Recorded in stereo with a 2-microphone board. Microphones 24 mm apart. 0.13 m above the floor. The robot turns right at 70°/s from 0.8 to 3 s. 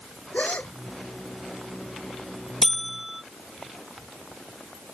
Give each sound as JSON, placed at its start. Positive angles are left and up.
{"t": 0.3, "sound": "a gasp", "side_deg": 80}
{"t": 2.6, "sound": "a buzzer", "side_deg": 15}